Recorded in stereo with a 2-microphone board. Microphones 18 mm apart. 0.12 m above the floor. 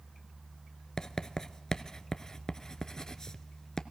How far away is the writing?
About 0.5 m.